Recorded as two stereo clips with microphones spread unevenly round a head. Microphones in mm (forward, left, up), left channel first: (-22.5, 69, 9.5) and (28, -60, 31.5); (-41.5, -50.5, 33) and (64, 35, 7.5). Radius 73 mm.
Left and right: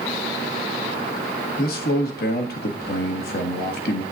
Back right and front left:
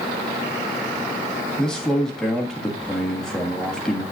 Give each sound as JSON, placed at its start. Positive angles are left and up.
{"t": 1.6, "sound": "a man speaking", "azimuth_deg": 130, "distance_m": 1.5}